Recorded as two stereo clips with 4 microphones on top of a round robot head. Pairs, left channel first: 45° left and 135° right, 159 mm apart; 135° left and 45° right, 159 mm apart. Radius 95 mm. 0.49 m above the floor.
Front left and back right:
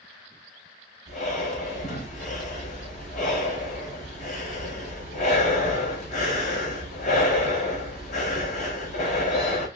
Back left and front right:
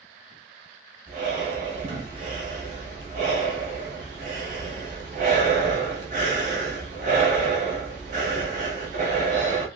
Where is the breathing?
Straight ahead, 1.3 m.